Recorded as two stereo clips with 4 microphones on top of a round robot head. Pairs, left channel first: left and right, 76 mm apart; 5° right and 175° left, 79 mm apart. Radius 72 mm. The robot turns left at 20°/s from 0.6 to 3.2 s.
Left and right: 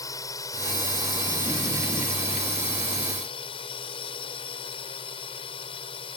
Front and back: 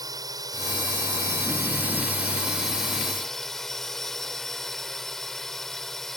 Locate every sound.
0.0 s a drone: 135° left; by 6.2 s 85° left